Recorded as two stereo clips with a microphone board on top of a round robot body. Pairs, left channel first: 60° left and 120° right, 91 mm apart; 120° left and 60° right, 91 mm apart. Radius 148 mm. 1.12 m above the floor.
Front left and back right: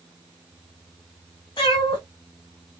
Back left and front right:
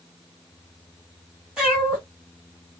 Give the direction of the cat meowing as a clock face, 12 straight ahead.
11 o'clock.